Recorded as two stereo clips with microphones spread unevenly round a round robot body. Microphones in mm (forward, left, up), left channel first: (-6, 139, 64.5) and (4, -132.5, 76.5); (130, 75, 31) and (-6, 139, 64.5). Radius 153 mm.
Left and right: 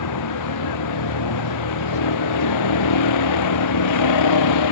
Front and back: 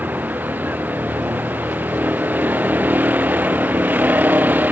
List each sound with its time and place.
0.0 s a vehicle: 75° left